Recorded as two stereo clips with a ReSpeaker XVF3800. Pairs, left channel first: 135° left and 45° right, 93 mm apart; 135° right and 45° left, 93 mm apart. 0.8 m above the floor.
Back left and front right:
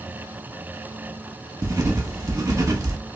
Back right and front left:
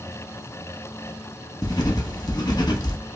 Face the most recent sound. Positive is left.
turn(degrees=-100)